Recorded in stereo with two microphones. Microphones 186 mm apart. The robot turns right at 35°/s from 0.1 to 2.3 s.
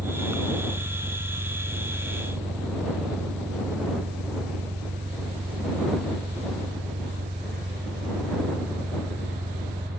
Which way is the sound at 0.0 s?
140° right.